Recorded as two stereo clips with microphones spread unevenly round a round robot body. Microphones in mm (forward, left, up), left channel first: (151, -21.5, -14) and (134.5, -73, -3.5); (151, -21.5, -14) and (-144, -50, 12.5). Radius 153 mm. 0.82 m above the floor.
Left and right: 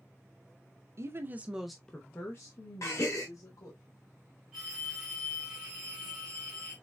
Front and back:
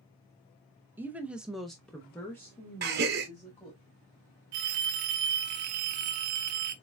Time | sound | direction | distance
1.0 | a woman speaking | 85° right | 0.7 m
2.8 | a gasp | 130° left | 0.7 m
4.5 | a phone ringing | 170° left | 0.7 m